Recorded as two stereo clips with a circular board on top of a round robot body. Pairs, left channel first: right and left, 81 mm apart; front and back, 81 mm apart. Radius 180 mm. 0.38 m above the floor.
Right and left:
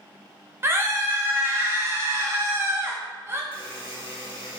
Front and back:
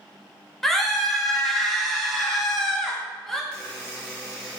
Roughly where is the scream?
Left.